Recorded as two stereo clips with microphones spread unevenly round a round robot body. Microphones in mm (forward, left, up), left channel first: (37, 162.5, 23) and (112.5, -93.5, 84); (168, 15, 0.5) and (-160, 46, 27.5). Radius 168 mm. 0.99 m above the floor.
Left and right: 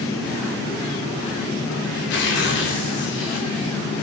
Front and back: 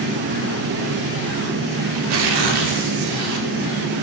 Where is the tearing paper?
160° left, 2.5 m.